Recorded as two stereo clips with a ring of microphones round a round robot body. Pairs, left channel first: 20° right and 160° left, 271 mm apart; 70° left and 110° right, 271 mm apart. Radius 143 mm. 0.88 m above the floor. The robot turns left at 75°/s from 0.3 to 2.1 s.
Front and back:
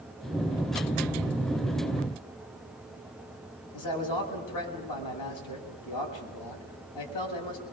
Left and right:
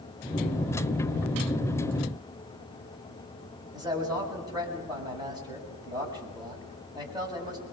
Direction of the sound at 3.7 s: 35° right.